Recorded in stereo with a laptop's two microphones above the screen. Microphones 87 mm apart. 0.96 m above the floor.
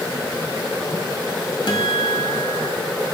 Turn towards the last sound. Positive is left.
turn(degrees=70)  # may be behind; listen again after turning